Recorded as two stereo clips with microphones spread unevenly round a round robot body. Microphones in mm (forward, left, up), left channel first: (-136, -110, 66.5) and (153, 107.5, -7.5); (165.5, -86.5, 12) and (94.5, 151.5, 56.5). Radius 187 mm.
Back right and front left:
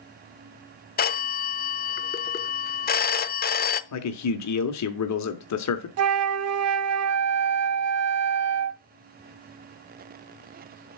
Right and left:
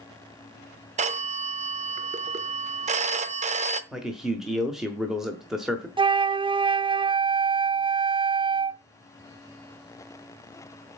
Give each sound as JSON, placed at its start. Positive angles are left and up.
{"t": 1.0, "sound": "a phone ringing", "azimuth_deg": 155, "distance_m": 0.6}
{"t": 3.9, "sound": "a man speaking", "azimuth_deg": -150, "distance_m": 1.0}
{"t": 6.0, "sound": "a flute", "azimuth_deg": 30, "distance_m": 0.7}